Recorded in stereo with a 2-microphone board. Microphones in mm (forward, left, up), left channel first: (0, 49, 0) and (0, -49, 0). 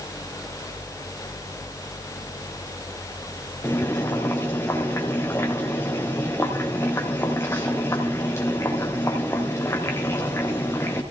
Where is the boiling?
25° left (ahead or behind), 3 m.